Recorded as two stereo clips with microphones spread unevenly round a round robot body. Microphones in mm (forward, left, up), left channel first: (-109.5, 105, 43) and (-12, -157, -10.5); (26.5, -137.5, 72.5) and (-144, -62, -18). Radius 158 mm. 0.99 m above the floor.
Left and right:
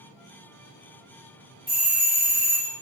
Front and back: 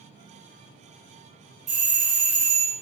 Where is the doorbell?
165° right, 1.6 m.